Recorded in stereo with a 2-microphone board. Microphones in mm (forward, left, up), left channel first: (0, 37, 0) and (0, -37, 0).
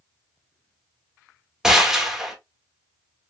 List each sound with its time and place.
1.6 s a gunshot: 10° right (ahead or behind), 1.2 m